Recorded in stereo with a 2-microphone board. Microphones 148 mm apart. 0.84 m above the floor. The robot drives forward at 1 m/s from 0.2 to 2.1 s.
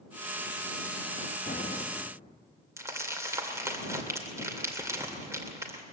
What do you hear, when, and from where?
1.5 s an explosion: 70° left (ahead or behind), 0.7 m; by 2.4 s 45° left (ahead or behind), 1.0 m
2.8 s crumpling: 20° right (ahead or behind), 2.5 m